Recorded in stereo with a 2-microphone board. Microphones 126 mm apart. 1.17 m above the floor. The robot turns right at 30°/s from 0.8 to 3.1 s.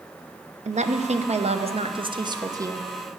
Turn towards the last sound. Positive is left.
turn(degrees=-15)